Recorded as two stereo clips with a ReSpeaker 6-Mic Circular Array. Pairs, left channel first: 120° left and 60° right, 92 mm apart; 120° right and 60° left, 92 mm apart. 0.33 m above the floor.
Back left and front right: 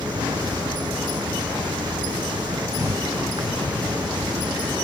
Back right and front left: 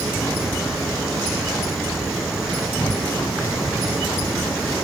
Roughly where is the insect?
Ahead right.